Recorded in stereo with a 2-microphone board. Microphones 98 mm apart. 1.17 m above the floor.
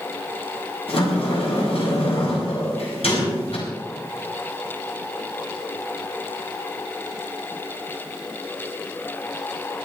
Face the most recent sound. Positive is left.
turn(degrees=85)